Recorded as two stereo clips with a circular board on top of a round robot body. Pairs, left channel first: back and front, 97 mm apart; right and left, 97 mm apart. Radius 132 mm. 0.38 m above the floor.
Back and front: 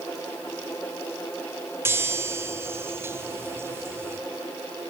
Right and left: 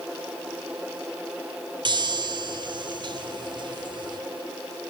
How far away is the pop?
No pop in this recording.